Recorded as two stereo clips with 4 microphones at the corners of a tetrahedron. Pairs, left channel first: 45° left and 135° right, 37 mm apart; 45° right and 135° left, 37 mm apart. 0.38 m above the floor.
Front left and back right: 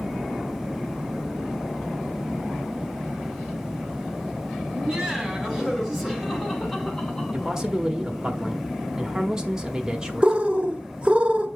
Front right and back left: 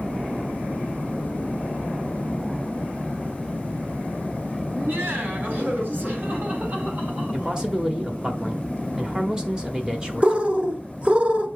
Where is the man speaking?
165° left, 1.2 m.